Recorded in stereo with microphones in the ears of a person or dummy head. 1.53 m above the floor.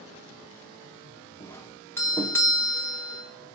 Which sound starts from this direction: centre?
A doorbell, at 1.4 s.